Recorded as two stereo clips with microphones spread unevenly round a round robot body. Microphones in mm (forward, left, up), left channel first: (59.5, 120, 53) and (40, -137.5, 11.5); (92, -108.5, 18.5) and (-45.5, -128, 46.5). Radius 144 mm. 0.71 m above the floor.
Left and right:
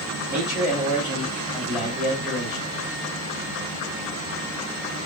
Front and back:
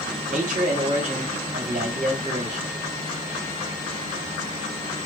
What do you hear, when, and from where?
0.3 s a man speaking: 170° right, 1.5 m